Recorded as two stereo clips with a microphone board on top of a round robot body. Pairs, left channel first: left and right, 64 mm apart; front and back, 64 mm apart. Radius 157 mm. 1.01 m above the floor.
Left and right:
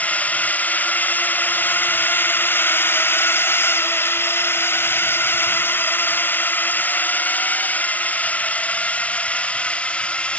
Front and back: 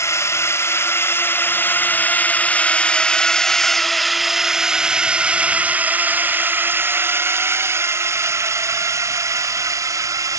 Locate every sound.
0.0 s a drone: 30° left; by 10.4 s 160° left